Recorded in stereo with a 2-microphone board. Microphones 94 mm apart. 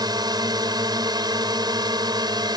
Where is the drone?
45° right (ahead or behind).